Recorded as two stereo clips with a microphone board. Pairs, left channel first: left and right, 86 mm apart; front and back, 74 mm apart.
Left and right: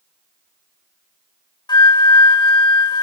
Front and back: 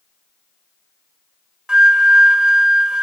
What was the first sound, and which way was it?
A flute, 105° left.